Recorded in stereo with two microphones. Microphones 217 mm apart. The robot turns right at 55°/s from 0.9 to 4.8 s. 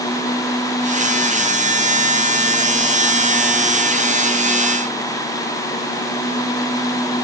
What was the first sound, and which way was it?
Only background noise.